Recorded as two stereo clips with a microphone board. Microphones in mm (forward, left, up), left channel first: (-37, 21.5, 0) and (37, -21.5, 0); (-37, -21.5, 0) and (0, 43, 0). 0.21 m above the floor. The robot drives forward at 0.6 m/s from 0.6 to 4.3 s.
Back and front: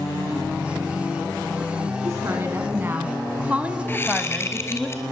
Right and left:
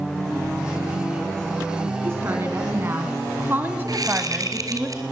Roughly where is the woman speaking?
Ahead.